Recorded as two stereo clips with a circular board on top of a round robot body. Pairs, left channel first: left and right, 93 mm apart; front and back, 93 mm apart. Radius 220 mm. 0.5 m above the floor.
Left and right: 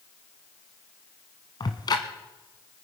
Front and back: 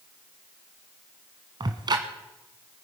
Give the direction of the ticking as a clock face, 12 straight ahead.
7 o'clock.